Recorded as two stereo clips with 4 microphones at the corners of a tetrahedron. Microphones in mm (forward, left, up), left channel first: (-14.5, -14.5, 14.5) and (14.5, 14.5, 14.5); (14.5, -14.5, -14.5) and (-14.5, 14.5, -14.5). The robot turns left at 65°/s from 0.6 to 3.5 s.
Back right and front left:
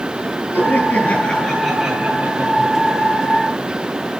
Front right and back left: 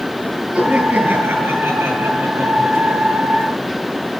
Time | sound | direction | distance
0.5 | laughter | 150° right | 8 m